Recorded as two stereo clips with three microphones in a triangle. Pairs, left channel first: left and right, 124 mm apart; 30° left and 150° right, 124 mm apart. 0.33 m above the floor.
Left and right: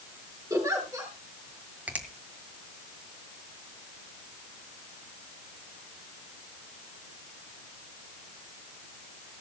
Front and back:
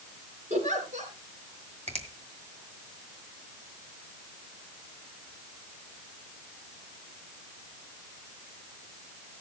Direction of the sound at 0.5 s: 155° right.